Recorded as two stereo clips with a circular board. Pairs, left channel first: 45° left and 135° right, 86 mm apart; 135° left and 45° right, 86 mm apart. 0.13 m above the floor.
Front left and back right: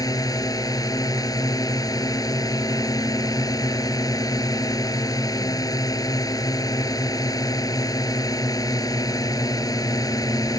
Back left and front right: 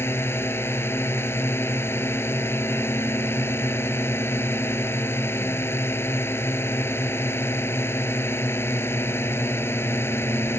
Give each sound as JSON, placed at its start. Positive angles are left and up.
{"t": 0.0, "sound": "a drone", "azimuth_deg": 80}